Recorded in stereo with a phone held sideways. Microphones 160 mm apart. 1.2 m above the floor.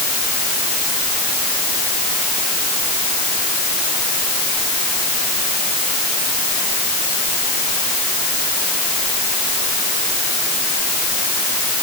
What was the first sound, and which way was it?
Only background noise.